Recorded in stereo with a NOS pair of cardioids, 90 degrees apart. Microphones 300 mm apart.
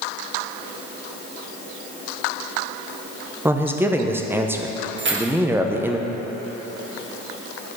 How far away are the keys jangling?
About 1.5 m.